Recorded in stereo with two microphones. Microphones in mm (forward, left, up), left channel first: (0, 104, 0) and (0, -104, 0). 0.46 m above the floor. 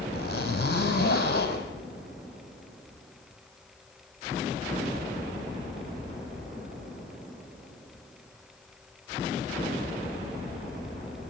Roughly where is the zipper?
Left.